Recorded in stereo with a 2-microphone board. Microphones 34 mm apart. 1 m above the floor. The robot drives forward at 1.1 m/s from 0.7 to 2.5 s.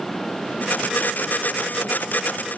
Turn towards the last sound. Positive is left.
No sound to turn to.